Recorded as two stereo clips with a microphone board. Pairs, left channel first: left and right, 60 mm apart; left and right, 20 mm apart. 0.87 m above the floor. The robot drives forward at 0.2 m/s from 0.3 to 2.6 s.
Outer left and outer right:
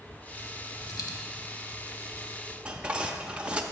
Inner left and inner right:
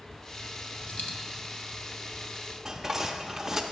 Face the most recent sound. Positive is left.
turn(degrees=-15)  # may be behind; listen again after turning